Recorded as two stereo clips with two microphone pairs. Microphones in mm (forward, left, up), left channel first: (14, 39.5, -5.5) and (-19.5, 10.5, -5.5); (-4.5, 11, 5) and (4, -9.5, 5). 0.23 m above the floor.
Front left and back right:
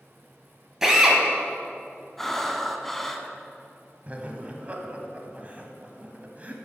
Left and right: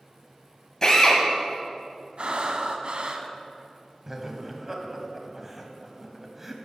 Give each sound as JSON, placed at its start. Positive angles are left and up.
{"t": 0.8, "sound": "a drill", "azimuth_deg": 145, "distance_m": 1.5}
{"t": 2.2, "sound": "breathing", "azimuth_deg": -40, "distance_m": 0.7}
{"t": 4.1, "sound": "laughter", "azimuth_deg": -130, "distance_m": 1.1}